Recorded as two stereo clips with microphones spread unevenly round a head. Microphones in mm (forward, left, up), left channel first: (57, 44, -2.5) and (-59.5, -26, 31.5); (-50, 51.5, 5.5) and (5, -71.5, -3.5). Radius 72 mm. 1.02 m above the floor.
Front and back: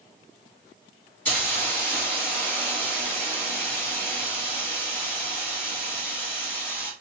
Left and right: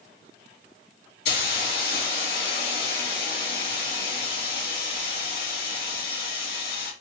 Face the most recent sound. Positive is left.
turn(degrees=105)